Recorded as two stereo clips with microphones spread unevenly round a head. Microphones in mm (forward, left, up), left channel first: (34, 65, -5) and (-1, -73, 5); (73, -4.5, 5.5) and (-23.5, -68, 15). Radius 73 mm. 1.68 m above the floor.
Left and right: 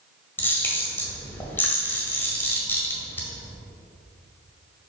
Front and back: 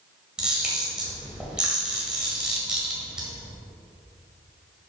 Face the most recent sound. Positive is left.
turn(degrees=145)